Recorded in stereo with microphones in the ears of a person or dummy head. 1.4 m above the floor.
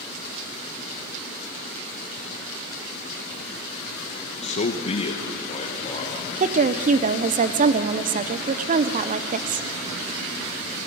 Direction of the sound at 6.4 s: 40° right (ahead or behind).